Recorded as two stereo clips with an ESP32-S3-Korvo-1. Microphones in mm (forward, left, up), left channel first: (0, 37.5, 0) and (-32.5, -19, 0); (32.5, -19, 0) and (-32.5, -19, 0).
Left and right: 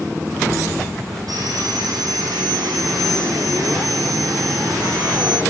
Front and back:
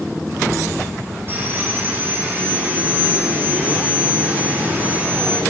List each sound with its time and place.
1.3 s sawing: 125° right, 4 m